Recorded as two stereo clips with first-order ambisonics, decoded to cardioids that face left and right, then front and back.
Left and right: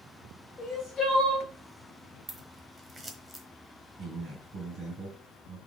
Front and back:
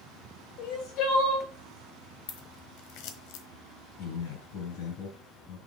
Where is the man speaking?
30° right, 3.5 m.